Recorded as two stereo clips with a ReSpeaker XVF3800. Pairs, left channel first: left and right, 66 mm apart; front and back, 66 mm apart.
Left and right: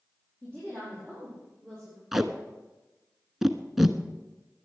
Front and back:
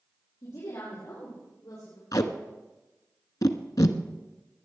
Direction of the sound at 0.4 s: 25° left.